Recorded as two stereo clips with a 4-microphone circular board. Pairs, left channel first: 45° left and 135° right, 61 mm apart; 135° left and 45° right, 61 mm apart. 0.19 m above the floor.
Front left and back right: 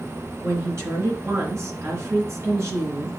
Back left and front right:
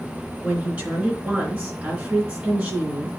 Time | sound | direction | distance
0.4 | a woman speaking | 110° right | 3 m